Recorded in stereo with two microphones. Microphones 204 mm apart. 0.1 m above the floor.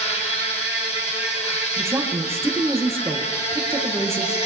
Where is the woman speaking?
15° right (ahead or behind), 2.5 m.